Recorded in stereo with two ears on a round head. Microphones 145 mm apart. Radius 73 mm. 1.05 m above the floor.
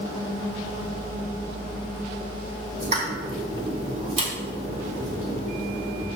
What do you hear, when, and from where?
2.8 s a pop: 40° right (ahead or behind), 1.8 m